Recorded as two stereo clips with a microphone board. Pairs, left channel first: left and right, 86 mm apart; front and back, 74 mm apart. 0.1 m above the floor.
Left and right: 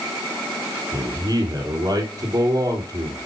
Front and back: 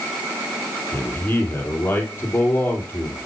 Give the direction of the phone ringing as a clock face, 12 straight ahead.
I don't hear a phone ringing.